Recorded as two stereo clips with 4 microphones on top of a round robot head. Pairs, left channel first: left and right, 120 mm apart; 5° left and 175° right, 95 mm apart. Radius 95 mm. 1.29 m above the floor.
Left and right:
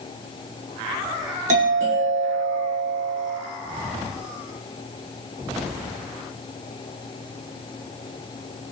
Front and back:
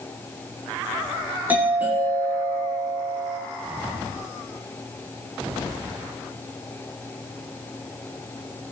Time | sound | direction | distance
1.5 | a doorbell | 100° right | 7.5 m